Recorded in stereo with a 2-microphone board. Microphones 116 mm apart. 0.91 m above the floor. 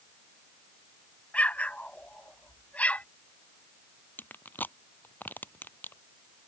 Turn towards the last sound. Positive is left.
turn(degrees=15)  # may be behind; listen again after turning